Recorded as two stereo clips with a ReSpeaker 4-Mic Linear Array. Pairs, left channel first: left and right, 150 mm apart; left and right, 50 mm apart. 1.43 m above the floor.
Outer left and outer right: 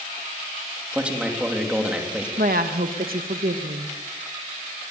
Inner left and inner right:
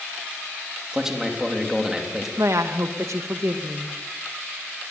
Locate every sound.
0.9 s a man speaking: 10° right (ahead or behind), 3 m
2.4 s a woman speaking: 75° right (ahead or behind), 1.6 m